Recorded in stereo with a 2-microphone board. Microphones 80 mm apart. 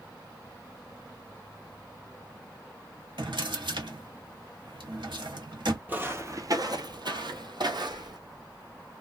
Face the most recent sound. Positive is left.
turn(degrees=-60)  # may be behind; listen again after turning